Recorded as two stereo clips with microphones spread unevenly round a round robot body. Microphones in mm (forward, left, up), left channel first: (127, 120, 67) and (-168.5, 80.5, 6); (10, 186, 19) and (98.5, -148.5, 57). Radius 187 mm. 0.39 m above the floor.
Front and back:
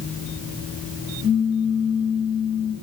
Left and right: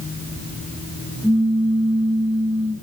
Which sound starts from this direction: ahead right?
A pop, at 1.2 s.